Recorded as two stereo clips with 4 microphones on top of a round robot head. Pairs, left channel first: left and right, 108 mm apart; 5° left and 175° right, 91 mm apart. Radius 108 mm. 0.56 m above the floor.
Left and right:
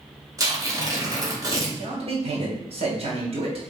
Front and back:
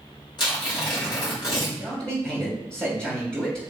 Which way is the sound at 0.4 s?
35° right.